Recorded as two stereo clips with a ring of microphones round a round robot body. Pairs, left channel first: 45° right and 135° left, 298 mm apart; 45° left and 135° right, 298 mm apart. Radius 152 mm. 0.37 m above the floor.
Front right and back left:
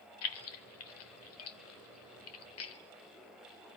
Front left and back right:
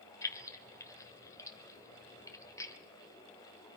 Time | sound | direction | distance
0.2 | keys jangling | 30° right | 1.1 m